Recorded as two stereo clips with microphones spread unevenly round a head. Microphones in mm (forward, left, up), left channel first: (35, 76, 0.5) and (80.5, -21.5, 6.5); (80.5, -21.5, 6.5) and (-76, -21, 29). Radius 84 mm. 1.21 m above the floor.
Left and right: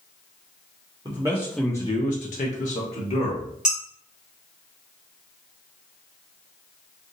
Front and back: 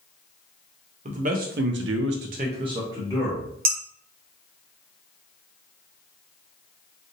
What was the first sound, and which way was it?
A man speaking, 135° right.